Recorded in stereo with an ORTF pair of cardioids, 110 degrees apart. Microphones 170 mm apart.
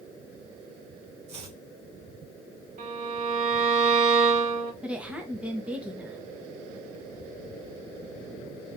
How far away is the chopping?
About 1.5 m.